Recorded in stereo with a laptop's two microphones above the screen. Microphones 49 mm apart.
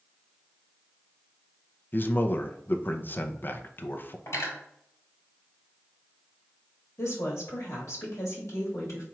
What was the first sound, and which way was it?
A man speaking, 40° left (ahead or behind).